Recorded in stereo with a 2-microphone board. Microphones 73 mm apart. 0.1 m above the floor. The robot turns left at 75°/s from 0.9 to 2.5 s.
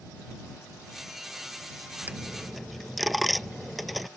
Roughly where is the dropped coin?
Right.